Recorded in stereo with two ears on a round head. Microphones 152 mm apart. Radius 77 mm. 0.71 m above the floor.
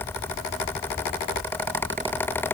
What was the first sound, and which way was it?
Only background noise.